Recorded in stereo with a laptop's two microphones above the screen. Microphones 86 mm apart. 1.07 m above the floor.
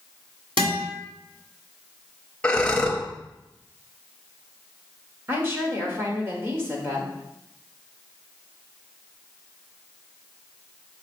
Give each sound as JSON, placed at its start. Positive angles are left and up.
{"t": 0.6, "sound": "a guitar", "side_deg": -75, "distance_m": 3.0}
{"t": 2.4, "sound": "breathing", "side_deg": 10, "distance_m": 0.8}
{"t": 5.3, "sound": "a woman speaking", "side_deg": -25, "distance_m": 1.3}